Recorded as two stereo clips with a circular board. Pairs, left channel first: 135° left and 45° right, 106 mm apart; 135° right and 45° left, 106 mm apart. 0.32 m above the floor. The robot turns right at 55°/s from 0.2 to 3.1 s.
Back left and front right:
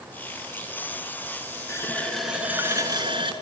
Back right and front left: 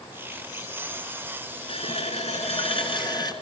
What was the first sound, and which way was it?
A running tap, 165° right.